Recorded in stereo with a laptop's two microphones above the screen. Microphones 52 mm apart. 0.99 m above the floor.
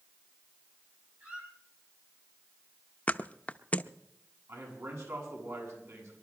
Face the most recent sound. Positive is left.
turn(degrees=-65)  # may be behind; listen again after turning